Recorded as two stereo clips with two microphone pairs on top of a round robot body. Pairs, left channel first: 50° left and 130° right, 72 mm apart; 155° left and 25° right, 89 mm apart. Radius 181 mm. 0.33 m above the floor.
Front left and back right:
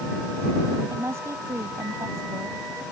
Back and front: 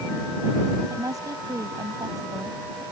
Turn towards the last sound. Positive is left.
turn(degrees=-80)